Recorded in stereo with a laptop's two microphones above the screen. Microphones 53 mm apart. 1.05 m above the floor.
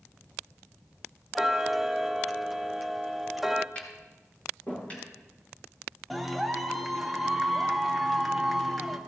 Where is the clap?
Centre (ahead or behind), 1.7 m.